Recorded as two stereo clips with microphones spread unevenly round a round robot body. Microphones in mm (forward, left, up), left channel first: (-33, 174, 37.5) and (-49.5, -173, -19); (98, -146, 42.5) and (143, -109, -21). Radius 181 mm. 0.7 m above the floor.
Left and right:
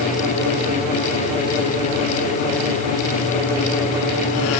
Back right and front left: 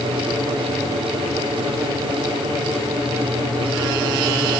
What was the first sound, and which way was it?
Only background noise.